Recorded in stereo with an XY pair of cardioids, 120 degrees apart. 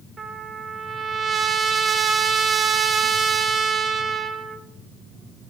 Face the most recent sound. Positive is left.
turn(degrees=-35)